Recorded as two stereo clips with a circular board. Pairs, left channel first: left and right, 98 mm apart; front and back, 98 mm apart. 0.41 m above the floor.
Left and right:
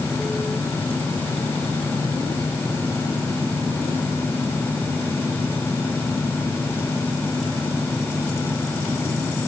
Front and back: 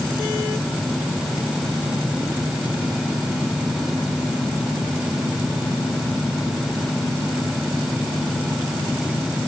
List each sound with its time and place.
Only background noise.